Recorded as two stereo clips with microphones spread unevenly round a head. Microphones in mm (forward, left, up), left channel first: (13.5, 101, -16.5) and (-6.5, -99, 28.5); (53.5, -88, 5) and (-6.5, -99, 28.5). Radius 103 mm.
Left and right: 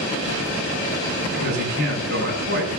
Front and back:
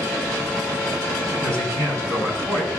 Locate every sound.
1.3 s a man speaking: 140° right, 7 m